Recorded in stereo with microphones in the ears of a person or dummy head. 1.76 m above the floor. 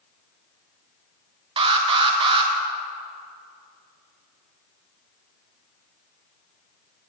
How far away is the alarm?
About 1.3 m.